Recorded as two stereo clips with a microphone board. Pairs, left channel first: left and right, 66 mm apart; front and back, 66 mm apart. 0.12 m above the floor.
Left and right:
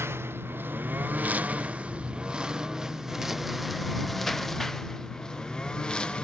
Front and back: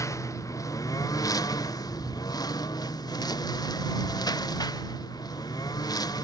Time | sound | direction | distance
0.0 | a lawn mower | 40° right | ?